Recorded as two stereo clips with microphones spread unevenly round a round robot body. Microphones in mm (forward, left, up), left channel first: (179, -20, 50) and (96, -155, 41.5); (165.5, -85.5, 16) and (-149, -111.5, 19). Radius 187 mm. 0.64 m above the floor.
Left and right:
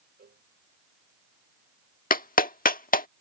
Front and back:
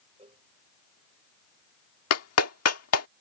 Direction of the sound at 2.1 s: 45° left.